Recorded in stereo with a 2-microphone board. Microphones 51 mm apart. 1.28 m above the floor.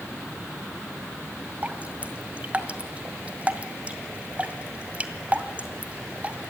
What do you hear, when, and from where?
1.6 s dripping: 25° right (ahead or behind), 2.0 m